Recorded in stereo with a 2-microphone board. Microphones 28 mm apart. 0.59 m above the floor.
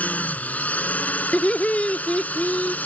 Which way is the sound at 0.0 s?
60° left (ahead or behind).